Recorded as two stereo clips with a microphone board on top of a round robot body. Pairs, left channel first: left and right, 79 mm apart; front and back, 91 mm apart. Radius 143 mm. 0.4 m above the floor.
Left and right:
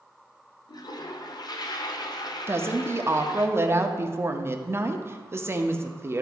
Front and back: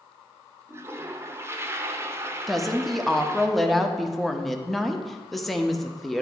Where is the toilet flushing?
120° left, 0.7 m.